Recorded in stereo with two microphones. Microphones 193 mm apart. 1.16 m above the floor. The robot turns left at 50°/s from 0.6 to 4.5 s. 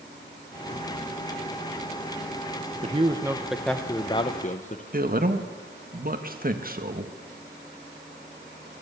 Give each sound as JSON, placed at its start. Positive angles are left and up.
{"t": 2.8, "sound": "a man speaking", "azimuth_deg": -140, "distance_m": 1.0}
{"t": 4.9, "sound": "a man speaking", "side_deg": -50, "distance_m": 1.8}